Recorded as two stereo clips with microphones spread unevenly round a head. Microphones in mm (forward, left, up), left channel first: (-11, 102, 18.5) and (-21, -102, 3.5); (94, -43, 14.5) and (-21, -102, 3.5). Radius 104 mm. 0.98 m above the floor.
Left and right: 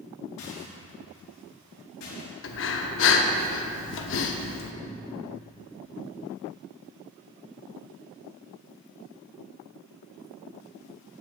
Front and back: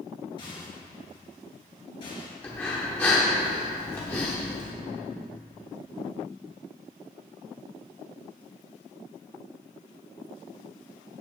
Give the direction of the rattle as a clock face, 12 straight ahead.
9 o'clock.